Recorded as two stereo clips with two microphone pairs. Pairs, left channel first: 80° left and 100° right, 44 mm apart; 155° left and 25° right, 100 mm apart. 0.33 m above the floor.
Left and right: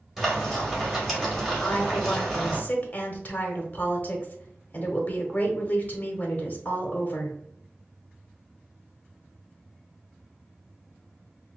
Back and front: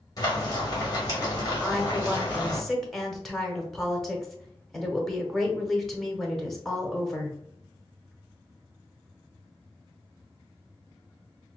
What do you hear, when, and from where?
0.2 s frying: 175° right, 2.0 m
1.6 s a woman speaking: 70° left, 1.0 m